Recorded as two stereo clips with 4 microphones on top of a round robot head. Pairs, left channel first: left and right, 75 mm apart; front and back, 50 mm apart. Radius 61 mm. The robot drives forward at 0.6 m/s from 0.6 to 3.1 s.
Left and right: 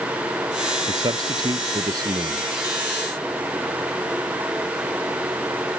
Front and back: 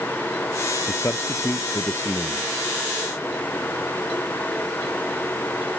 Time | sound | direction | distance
0.9 | a man speaking | 50° right | ?